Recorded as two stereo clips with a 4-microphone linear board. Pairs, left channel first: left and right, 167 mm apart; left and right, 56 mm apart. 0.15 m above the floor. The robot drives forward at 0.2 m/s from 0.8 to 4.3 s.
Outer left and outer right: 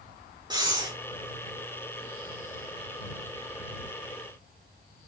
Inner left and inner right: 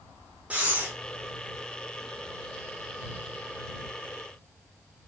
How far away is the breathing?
About 2.5 m.